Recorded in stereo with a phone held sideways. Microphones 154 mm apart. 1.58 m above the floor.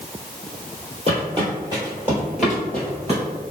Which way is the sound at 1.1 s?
35° right (ahead or behind).